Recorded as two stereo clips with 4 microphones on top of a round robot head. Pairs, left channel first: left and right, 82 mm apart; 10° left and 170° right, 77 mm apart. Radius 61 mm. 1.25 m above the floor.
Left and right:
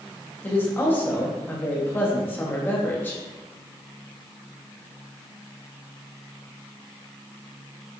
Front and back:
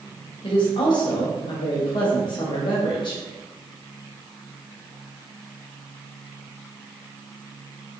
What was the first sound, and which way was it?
A woman speaking, 25° left.